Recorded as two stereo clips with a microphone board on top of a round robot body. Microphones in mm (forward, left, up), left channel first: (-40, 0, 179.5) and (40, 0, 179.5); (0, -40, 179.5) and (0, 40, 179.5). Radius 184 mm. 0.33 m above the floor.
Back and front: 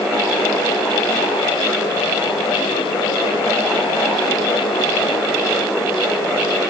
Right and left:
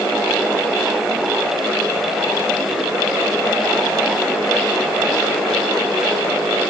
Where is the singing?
I don't hear singing.